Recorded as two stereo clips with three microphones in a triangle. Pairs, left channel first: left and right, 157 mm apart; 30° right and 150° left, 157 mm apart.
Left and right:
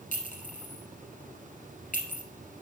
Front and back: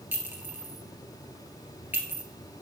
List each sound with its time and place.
0.1 s a clink: 75° left, 1.4 m